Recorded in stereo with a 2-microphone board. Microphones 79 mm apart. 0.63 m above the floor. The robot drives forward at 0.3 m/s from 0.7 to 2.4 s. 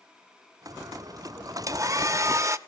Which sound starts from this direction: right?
A hair dryer, at 1.7 s.